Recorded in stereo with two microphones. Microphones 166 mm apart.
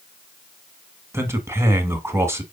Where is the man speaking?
15° right (ahead or behind), 1.1 m.